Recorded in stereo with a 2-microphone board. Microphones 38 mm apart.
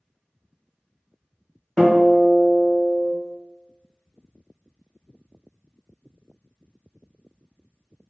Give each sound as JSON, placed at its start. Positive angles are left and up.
{"t": 1.8, "sound": "a guitar", "side_deg": 20, "distance_m": 1.1}